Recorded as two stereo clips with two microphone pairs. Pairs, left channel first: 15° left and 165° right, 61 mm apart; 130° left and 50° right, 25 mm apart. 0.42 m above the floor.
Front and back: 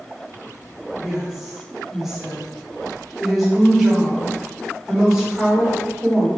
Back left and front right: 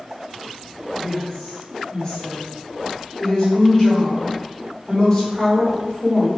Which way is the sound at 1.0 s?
110° left.